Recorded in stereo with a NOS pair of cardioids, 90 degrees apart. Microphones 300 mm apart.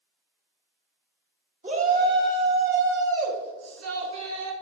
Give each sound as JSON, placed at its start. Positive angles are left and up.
{"t": 1.6, "sound": "a shout", "azimuth_deg": -25, "distance_m": 3.0}